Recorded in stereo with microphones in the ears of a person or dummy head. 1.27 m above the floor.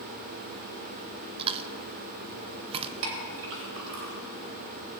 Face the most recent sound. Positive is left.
turn(degrees=-70)  # may be behind; listen again after turning